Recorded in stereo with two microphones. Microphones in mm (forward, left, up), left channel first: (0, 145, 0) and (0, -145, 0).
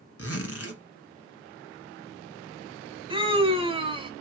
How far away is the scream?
About 1.0 m.